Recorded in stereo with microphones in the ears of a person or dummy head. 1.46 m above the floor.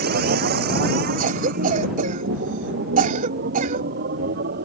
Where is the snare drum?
I don't hear a snare drum.